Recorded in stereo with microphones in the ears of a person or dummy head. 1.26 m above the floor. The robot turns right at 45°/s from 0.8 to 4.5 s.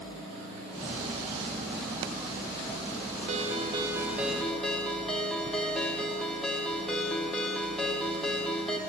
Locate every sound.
3.3 s a ringtone: 50° right, 1.2 m; by 8.8 s 5° left, 1.2 m